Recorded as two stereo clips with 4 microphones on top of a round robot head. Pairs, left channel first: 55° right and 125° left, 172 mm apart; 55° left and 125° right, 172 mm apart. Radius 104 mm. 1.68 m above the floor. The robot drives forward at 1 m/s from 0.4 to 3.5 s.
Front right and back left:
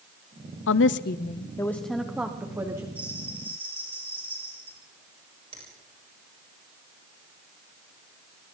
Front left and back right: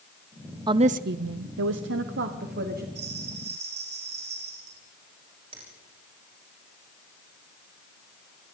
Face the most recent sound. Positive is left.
turn(degrees=180)